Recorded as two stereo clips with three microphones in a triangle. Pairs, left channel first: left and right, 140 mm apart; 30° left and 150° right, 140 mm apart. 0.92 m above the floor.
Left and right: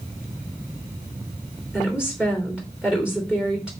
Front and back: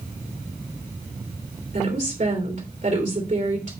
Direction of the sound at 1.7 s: 175° right.